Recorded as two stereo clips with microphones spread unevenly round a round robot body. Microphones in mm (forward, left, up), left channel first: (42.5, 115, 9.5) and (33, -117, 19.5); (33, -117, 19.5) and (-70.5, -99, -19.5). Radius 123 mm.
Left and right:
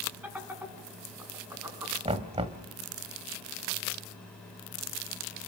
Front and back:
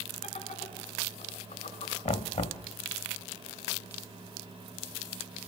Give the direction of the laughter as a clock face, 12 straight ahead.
12 o'clock.